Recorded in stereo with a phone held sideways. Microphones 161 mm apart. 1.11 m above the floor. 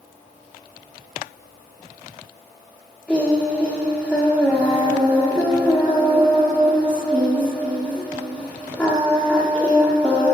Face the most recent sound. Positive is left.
turn(degrees=5)  # may be behind; listen again after turning